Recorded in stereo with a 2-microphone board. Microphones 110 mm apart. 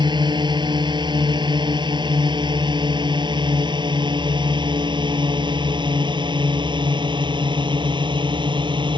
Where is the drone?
45° right (ahead or behind).